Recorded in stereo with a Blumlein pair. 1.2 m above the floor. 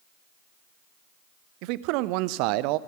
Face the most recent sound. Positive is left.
turn(degrees=-45)